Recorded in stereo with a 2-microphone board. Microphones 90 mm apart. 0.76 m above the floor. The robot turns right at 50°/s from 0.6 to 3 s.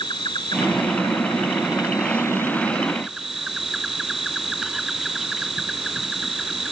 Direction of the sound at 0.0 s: 65° left.